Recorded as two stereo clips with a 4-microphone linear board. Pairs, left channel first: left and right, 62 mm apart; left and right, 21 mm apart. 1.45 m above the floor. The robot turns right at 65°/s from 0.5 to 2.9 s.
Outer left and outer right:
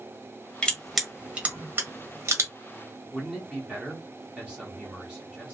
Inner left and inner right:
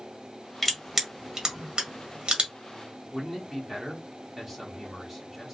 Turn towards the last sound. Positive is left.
turn(degrees=-20)  # may be behind; listen again after turning